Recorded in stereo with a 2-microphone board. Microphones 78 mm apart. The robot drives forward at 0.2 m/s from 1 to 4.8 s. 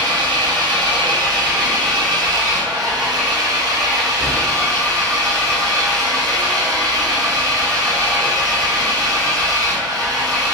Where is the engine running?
65° right (ahead or behind), 1.0 m; by 10.5 s 45° right (ahead or behind), 1.2 m.